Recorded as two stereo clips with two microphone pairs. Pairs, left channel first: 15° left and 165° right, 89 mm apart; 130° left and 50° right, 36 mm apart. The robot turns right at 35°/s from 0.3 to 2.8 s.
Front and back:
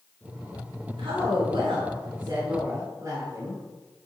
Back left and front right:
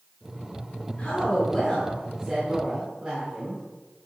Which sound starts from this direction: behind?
A woman speaking, at 1.0 s.